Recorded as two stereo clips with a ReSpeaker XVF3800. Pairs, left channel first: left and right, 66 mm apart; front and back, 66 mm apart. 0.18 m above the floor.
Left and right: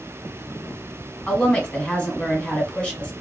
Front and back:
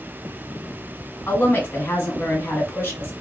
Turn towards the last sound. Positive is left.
turn(degrees=25)